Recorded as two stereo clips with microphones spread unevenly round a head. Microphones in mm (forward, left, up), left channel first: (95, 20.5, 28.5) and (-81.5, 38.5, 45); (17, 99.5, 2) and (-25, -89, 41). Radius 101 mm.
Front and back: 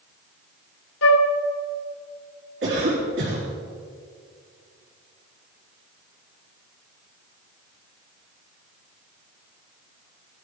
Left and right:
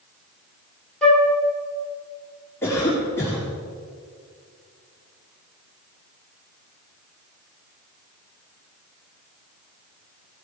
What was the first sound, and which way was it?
A flute, 20° right.